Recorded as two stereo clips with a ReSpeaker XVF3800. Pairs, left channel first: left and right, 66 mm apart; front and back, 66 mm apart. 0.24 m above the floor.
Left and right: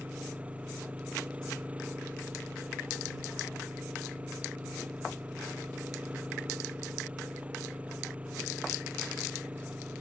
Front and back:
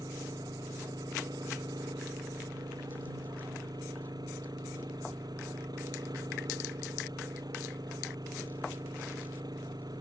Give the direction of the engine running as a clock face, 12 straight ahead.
5 o'clock.